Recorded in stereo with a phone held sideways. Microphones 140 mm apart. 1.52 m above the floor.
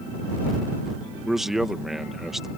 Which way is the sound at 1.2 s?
Centre (ahead or behind).